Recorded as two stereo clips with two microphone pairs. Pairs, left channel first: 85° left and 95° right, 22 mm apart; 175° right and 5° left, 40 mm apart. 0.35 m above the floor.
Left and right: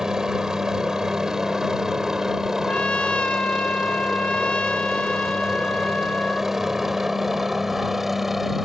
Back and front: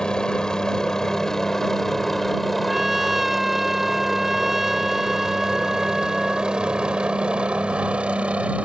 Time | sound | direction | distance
0.0 | a helicopter | 120° right | ?
2.7 | a trumpet | 95° left | ?